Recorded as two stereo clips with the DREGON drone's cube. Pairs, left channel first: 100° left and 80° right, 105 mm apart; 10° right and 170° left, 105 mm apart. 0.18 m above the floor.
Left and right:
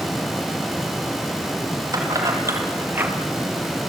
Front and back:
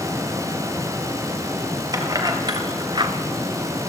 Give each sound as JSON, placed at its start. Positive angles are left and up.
{"t": 1.9, "sound": "keys jangling", "azimuth_deg": -135, "distance_m": 4.0}